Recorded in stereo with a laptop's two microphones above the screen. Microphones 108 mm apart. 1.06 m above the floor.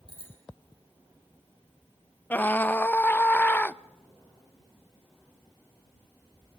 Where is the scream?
15° left (ahead or behind), 0.5 m.